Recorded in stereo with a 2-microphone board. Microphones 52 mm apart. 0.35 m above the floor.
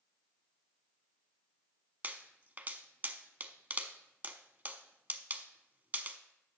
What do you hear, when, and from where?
2.0 s a pop: 35° right (ahead or behind), 0.5 m